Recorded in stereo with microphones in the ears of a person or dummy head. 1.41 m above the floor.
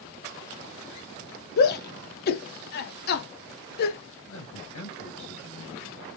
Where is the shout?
55° left (ahead or behind), 0.7 m.